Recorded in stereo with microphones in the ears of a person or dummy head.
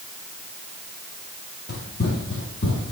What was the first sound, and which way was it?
Running footsteps, 50° left (ahead or behind).